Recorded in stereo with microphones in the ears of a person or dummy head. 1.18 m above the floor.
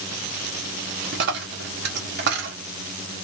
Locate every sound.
1.1 s a dropped coin: 55° right (ahead or behind), 0.9 m